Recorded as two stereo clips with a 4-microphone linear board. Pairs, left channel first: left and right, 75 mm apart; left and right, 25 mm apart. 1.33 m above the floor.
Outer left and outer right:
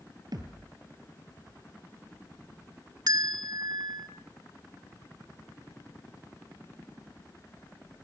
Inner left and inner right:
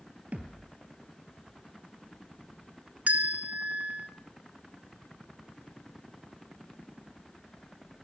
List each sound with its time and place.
0.3 s a thud: 60° right (ahead or behind), 2.5 m
3.1 s a bell: 65° right (ahead or behind), 1.5 m